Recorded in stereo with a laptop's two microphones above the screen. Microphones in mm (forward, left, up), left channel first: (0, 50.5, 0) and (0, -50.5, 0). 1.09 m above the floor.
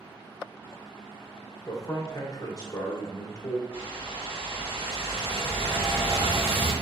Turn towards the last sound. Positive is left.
turn(degrees=-75)  # may be behind; listen again after turning